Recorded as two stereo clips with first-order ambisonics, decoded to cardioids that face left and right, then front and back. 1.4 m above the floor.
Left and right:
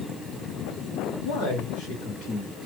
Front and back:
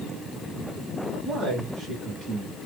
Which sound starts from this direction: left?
A man speaking, at 1.2 s.